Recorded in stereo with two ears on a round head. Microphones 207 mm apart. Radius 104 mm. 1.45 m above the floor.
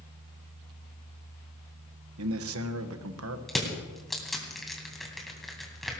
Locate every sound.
2.2 s a man speaking: 70° right (ahead or behind), 1.2 m
3.5 s crushing: centre (ahead or behind), 2.5 m